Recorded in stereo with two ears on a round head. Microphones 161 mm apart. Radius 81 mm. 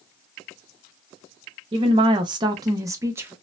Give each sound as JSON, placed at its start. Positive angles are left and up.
{"t": 1.7, "sound": "a woman speaking", "side_deg": -25, "distance_m": 0.7}